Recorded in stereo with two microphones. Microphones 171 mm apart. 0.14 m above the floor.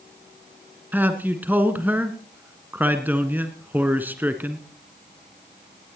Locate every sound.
0.9 s a man speaking: 10° right (ahead or behind), 1.5 m